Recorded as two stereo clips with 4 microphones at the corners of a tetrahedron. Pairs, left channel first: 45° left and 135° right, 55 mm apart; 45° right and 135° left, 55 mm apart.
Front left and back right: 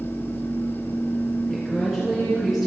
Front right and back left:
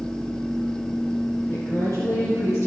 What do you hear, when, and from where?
1.5 s a woman speaking: 50° right, 3 m